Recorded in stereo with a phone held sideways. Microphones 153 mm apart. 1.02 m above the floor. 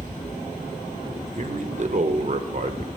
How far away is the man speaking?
About 0.8 m.